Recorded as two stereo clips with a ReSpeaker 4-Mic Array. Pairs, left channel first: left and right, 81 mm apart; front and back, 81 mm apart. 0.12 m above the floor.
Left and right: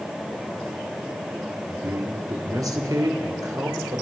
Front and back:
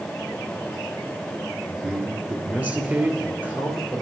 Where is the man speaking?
115° right, 2 m.